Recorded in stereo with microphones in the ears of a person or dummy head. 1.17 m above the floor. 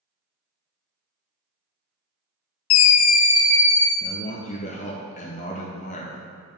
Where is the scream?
85° left, 0.5 m; by 3.9 s 10° left (ahead or behind), 1.4 m.